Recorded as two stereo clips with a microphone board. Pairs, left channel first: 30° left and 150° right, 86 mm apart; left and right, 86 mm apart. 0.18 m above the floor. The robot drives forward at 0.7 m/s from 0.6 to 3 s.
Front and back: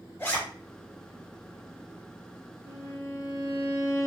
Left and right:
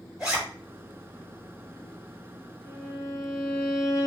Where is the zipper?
15° right, 2 m.